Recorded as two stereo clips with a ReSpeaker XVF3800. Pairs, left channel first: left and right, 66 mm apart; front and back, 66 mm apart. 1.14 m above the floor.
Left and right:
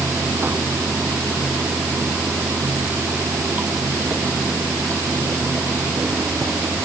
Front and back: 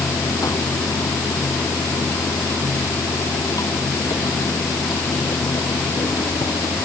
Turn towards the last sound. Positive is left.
turn(degrees=-25)